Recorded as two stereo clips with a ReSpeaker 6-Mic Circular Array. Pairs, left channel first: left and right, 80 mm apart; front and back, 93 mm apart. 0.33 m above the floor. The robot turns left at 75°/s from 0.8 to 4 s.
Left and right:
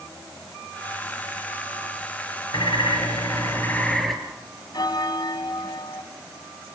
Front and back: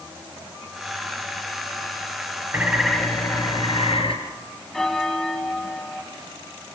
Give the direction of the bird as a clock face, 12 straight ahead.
8 o'clock.